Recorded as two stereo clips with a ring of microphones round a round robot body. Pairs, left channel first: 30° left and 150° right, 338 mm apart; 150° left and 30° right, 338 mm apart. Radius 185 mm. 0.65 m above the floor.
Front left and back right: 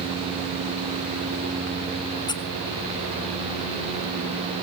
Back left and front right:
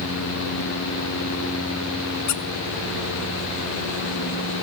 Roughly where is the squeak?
Left.